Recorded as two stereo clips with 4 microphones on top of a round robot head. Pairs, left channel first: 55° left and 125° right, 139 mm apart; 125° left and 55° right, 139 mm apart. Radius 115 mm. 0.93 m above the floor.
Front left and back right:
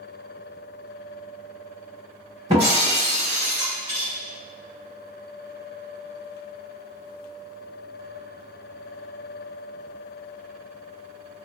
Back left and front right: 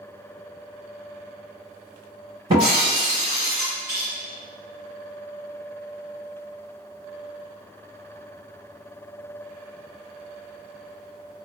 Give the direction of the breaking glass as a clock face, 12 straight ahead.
3 o'clock.